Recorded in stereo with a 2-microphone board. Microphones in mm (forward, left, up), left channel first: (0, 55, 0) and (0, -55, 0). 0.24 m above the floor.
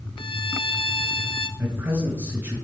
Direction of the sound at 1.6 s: 25° right (ahead or behind).